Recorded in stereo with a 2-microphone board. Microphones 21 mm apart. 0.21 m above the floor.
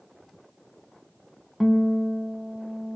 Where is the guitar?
5° right (ahead or behind), 0.6 m.